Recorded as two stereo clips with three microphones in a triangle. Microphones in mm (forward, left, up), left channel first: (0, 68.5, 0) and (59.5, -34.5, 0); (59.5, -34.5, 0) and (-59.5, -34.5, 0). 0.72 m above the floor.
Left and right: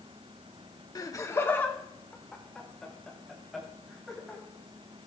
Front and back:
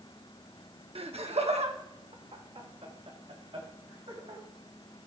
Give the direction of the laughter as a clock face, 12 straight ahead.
6 o'clock.